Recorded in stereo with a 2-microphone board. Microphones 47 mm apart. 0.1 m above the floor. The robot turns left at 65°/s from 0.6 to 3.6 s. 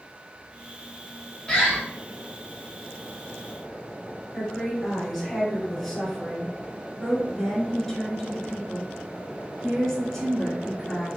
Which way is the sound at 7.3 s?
10° left (ahead or behind).